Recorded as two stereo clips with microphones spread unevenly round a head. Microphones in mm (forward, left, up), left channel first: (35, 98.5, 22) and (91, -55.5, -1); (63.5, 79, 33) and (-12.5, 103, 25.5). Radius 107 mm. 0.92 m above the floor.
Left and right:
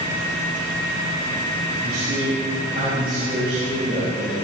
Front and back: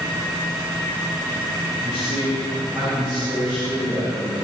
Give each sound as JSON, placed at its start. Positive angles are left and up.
{"t": 1.8, "sound": "a man speaking", "azimuth_deg": -120, "distance_m": 4.5}